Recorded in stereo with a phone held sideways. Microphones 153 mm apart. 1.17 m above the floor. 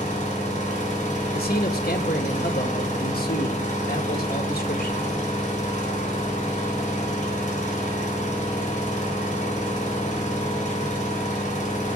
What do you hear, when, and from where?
0.0 s an engine running: 55° left (ahead or behind), 4 m
1.3 s a man speaking: 80° left, 1.8 m